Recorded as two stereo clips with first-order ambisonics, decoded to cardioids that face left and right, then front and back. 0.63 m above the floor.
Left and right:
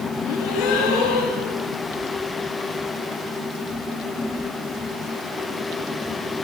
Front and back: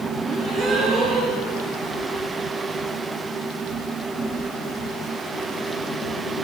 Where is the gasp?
120° left, 9 m.